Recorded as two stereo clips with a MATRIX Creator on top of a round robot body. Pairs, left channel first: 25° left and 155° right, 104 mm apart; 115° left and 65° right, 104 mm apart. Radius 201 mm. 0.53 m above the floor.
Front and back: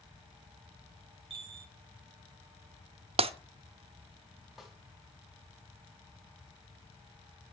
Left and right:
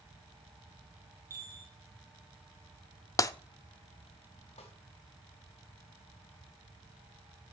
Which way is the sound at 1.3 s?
130° right.